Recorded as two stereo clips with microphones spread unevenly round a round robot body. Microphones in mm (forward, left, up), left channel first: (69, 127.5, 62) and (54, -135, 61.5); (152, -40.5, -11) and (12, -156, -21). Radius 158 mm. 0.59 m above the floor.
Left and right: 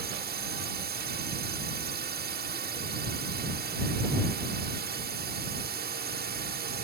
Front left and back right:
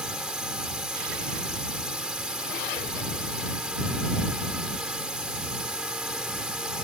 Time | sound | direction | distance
0.0 | a drone | 55° right | ?